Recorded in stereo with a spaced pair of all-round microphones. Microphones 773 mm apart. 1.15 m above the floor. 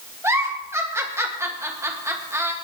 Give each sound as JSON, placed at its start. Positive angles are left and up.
{"t": 0.2, "sound": "a giggle", "side_deg": -5, "distance_m": 1.7}